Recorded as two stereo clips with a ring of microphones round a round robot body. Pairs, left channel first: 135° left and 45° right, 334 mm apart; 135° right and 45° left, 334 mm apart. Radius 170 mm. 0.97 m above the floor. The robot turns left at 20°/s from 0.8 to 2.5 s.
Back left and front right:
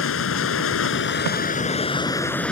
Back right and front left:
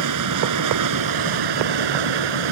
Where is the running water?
80° left; by 2.5 s 50° left.